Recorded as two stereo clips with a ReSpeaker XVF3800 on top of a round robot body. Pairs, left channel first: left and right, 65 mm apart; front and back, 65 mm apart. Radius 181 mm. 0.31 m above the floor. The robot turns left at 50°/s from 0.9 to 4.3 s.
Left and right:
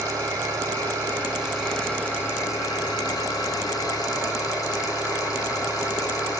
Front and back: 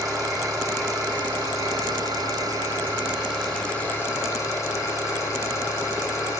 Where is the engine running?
145° right, 7.5 m; by 6.4 s 45° left, 7.5 m.